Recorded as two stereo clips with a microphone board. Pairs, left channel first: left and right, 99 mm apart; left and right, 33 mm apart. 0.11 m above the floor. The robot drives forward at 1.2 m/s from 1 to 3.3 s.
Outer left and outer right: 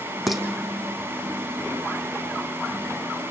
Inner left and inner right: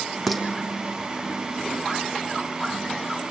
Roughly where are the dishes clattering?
Centre.